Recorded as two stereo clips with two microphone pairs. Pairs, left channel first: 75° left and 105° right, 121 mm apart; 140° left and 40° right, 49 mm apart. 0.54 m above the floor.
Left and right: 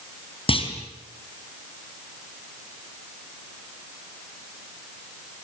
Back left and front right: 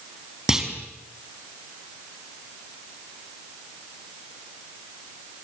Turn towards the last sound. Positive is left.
turn(degrees=35)